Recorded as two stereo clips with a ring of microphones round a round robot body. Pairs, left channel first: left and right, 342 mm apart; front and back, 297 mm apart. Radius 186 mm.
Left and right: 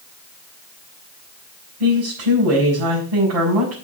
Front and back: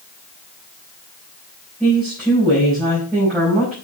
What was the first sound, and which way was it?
A woman speaking, 85° right.